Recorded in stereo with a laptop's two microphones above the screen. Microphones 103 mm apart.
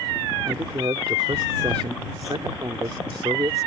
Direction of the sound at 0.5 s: 55° right (ahead or behind).